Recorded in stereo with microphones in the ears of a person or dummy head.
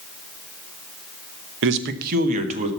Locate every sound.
1.6 s a man speaking: 70° right (ahead or behind), 1.0 m; by 2.7 s 35° right (ahead or behind), 1.6 m